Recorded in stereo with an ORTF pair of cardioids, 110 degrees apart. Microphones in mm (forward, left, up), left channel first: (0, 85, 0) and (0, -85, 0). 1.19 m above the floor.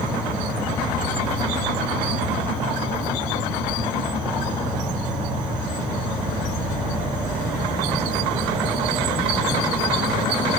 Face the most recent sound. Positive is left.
turn(degrees=-5)